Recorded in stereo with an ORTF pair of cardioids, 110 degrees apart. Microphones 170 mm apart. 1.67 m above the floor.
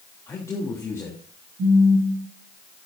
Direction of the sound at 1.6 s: 65° right.